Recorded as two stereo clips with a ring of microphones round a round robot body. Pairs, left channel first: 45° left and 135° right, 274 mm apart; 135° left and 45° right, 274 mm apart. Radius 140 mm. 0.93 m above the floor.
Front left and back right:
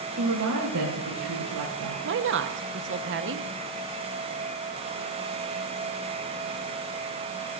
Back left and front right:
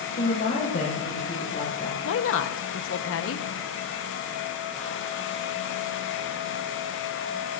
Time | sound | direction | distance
0.2 | a woman speaking | 170° right | 4.5 m
2.0 | a woman speaking | straight behind | 1.0 m